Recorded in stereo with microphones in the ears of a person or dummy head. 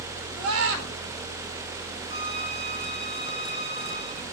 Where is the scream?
85° right, 5.5 m.